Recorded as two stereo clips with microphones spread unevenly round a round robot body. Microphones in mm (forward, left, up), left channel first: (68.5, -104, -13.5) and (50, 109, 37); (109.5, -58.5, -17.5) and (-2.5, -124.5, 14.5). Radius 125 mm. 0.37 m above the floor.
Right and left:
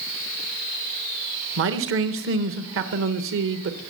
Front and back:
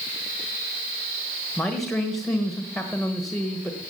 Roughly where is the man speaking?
Left.